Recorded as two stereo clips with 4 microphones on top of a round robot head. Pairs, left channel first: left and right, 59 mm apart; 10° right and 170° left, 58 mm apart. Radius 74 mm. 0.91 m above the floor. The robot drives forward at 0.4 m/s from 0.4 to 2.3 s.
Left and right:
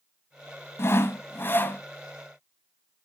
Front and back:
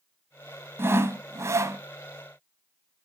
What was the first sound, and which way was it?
Sawing, 130° left.